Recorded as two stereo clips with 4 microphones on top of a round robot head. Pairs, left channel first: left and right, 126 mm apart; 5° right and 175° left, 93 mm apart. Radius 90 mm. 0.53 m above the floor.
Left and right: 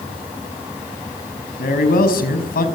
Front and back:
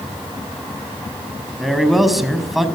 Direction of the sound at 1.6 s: 90° left.